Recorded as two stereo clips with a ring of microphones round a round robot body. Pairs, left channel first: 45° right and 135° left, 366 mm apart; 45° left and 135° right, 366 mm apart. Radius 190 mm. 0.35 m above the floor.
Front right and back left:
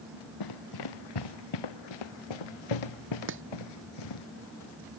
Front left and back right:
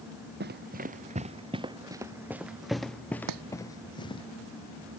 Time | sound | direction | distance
0.4 | running footsteps | 75° right | ?
3.3 | chopping | 170° right | ?